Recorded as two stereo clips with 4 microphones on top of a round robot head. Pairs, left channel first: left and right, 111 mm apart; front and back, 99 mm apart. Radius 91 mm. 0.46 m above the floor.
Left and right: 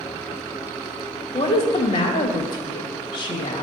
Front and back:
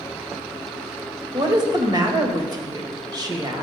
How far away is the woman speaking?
About 1.9 m.